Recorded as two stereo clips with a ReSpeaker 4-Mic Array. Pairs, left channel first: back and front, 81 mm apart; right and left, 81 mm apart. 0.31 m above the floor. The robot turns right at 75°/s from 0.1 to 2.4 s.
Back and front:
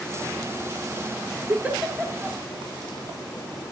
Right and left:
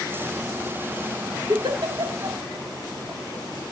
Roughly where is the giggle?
Ahead left.